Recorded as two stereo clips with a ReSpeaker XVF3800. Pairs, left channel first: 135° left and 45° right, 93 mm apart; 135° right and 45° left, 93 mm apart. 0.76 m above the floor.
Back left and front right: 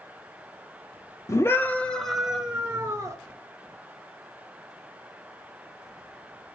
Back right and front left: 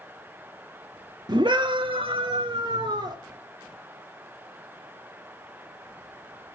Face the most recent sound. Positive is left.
turn(degrees=15)